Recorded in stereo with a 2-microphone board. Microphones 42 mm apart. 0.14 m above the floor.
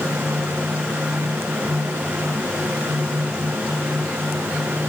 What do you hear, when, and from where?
Only background noise.